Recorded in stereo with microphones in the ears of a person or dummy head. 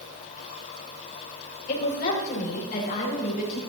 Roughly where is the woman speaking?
Left.